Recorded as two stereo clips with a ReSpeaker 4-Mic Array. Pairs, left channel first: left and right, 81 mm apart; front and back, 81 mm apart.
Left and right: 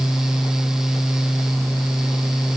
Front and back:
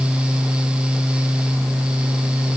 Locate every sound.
Only background noise.